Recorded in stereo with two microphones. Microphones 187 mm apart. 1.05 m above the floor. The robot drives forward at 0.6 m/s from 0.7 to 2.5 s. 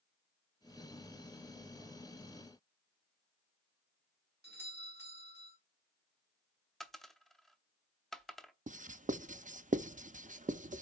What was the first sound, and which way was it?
A doorbell, 60° right (ahead or behind).